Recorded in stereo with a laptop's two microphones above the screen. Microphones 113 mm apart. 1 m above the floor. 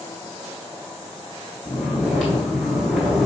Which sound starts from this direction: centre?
Snoring, at 1.6 s.